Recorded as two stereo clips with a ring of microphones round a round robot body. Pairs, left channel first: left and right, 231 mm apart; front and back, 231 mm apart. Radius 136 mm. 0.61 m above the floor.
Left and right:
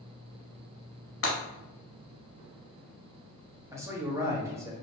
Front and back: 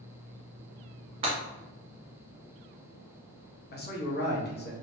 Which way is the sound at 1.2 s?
115° left.